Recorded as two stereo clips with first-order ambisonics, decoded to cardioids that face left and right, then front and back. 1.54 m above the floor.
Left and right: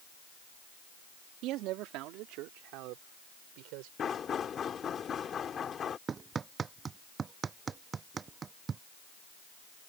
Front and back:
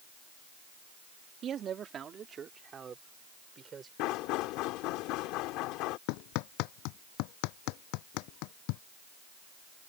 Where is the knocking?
25° left.